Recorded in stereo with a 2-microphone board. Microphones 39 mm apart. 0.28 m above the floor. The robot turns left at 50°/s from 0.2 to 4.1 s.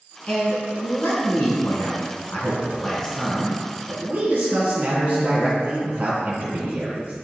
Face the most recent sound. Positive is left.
turn(degrees=-45)